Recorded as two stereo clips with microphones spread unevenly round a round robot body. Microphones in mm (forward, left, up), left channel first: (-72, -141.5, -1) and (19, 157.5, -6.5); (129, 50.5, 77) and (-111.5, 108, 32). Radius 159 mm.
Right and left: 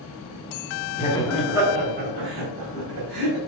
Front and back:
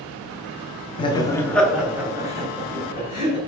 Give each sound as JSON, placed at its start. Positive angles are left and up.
{"t": 1.0, "sound": "laughter", "azimuth_deg": -80, "distance_m": 0.8}